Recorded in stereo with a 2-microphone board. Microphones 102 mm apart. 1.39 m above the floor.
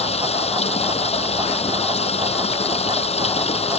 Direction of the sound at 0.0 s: 85° left.